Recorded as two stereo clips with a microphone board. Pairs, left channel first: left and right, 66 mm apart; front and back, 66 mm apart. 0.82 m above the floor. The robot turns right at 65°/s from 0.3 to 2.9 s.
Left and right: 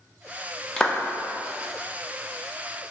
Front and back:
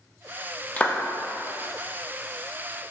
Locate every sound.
0.8 s a clap: 25° left, 0.7 m; by 1.0 s 40° left, 0.7 m